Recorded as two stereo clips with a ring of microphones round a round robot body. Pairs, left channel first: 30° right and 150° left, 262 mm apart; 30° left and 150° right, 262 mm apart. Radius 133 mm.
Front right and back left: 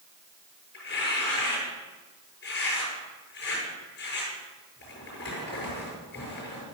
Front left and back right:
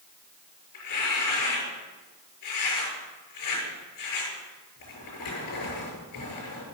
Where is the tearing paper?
20° left, 7 m.